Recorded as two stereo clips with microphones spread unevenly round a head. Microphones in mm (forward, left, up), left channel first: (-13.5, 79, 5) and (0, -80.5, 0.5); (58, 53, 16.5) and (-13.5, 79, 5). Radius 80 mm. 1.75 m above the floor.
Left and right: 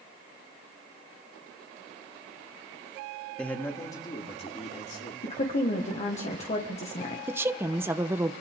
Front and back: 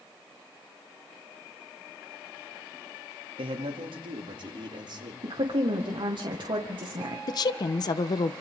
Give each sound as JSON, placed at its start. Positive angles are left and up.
{"t": 3.4, "sound": "a man speaking", "azimuth_deg": 180, "distance_m": 2.5}
{"t": 5.2, "sound": "a woman speaking", "azimuth_deg": 145, "distance_m": 1.9}
{"t": 7.3, "sound": "a woman speaking", "azimuth_deg": -10, "distance_m": 1.1}